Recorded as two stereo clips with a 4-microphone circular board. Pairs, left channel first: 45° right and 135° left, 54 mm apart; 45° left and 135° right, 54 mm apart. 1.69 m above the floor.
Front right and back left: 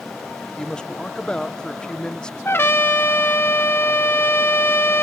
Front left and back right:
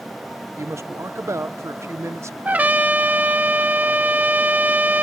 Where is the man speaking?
120° right.